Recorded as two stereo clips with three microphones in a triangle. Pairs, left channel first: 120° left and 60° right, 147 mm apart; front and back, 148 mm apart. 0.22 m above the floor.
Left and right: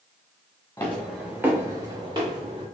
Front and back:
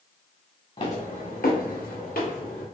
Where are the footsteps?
45° left, 1.3 m; by 2.6 s 10° right, 2.5 m.